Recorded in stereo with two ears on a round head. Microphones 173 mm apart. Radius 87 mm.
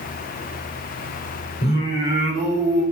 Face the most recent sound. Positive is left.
turn(degrees=50)  # may be behind; listen again after turning